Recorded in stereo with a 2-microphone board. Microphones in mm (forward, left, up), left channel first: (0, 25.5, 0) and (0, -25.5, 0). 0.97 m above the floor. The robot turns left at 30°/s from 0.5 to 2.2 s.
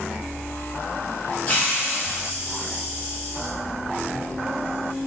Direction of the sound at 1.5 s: 25° left (ahead or behind).